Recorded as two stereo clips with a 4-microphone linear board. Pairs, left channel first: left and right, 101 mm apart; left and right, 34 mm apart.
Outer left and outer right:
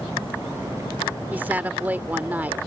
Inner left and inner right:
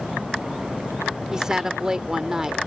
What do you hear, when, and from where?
1.3 s a woman speaking: 15° right (ahead or behind)